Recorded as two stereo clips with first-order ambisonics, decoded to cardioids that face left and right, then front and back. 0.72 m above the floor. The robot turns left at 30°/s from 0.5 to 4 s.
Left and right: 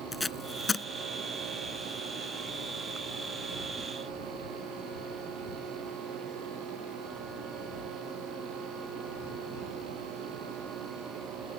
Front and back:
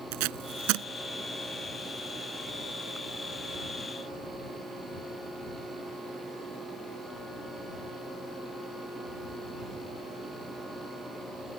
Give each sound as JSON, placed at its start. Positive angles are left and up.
{"t": 0.1, "sound": "tape being pulled", "azimuth_deg": 175}